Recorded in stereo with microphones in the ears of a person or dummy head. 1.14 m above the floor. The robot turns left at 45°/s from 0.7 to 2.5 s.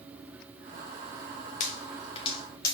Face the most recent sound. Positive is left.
turn(degrees=25)  # may be behind; listen again after turning